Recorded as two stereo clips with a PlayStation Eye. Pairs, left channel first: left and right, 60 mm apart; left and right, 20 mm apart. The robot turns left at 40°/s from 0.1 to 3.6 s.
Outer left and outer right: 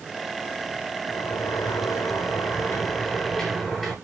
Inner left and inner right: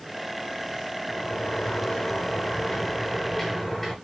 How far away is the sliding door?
About 9.5 m.